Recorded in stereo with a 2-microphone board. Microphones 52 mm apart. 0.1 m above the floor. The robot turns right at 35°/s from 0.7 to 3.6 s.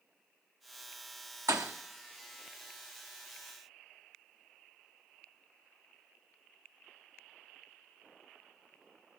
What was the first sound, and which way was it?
A thud, 85° right.